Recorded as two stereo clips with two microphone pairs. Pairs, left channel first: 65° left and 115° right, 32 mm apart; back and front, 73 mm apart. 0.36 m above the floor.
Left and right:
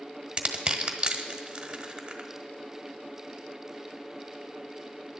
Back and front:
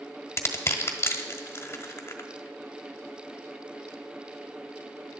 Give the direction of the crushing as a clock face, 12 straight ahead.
5 o'clock.